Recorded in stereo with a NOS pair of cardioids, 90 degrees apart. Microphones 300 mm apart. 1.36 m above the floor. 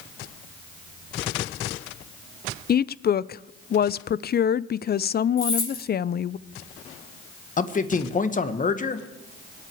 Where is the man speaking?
25° left, 1.6 m.